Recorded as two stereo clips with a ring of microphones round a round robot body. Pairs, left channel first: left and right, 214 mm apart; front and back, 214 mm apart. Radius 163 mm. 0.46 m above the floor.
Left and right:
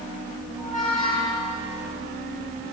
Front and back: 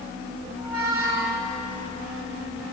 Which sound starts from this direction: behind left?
A squeak, at 0.6 s.